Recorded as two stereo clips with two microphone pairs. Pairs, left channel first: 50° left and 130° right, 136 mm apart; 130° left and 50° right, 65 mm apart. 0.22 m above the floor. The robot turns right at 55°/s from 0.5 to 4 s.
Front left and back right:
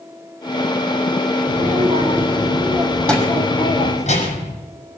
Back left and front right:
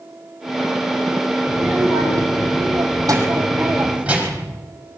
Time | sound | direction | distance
1.5 | a child speaking | 115° right | 6 m